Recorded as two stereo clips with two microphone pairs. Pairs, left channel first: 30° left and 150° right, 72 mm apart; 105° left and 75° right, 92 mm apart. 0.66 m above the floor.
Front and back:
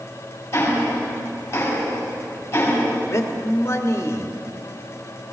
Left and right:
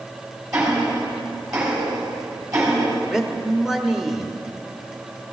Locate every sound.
0.5 s ticking: 25° right, 4.5 m
3.1 s a man speaking: 10° left, 1.3 m